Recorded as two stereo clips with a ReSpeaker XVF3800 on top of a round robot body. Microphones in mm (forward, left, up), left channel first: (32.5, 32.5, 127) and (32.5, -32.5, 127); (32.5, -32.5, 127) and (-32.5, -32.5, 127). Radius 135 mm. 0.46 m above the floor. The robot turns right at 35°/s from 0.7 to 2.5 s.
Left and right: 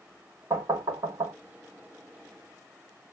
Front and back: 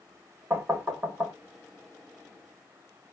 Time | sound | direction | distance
0.5 | knocking | 130° right | 1.7 m